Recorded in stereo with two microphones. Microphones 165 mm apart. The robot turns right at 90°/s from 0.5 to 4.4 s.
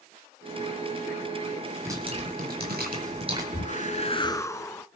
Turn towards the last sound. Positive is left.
turn(degrees=155)